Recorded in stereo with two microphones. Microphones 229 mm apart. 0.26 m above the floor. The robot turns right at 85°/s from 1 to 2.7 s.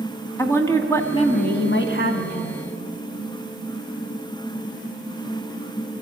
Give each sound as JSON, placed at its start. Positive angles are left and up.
{"t": 0.4, "sound": "a woman speaking", "azimuth_deg": 15, "distance_m": 2.0}